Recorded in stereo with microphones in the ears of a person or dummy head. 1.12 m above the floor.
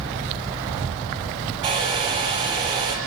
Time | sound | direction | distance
1.6 | a hair dryer | 40° right (ahead or behind) | 6 m